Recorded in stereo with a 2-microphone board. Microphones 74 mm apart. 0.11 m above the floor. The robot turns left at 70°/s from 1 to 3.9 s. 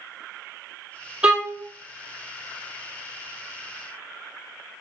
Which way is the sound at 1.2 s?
15° right (ahead or behind).